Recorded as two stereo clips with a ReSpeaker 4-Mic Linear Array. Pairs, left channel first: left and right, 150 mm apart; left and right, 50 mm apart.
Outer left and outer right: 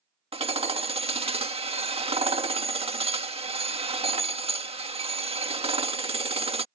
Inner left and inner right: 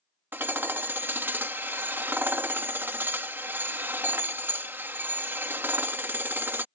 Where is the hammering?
40° right (ahead or behind).